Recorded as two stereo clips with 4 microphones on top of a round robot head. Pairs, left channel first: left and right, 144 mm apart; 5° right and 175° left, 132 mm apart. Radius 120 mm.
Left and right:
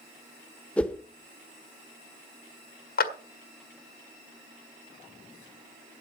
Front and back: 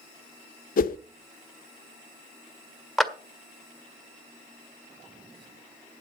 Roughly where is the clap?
Left.